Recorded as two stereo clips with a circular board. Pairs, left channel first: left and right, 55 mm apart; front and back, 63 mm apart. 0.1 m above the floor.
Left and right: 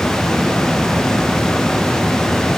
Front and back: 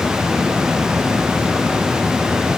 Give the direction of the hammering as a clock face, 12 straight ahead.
I don't hear hammering.